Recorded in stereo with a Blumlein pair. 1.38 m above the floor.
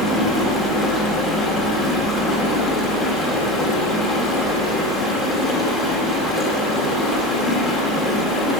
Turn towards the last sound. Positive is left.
turn(degrees=10)